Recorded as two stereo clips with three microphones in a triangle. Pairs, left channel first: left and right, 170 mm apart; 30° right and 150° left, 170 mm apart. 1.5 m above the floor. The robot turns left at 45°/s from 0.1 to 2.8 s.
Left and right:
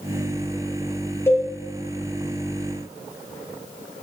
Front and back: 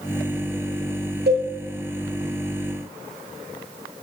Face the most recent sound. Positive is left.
turn(degrees=95)